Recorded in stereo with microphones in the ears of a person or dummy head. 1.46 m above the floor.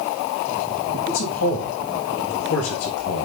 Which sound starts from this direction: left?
A man speaking, at 1.1 s.